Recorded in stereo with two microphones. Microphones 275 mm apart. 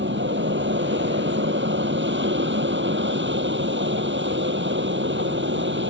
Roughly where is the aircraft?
Right.